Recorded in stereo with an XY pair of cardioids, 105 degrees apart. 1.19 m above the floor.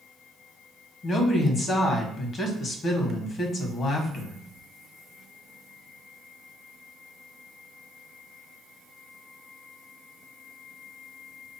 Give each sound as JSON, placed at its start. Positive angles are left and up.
{"t": 1.0, "sound": "a woman speaking", "azimuth_deg": 55, "distance_m": 1.4}